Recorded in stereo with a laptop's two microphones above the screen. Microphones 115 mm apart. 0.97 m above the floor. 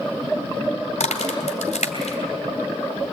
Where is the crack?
85° left, 3 m.